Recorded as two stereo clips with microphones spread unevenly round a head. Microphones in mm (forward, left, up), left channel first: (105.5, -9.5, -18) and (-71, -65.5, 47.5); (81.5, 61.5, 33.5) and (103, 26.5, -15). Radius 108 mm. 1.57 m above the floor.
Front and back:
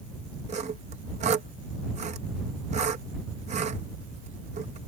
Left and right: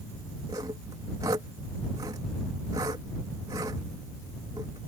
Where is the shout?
No shout in this recording.